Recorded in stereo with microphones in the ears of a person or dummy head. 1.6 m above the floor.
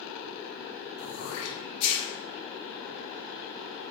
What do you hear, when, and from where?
1.0 s throat clearing: 70° left (ahead or behind), 1.1 m